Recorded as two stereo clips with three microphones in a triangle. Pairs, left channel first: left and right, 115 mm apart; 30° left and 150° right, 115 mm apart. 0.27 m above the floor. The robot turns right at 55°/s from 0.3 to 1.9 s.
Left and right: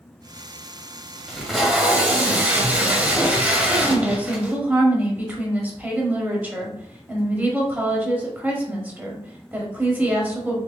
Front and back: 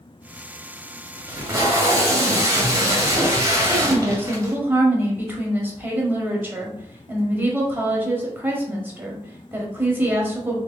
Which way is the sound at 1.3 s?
175° left.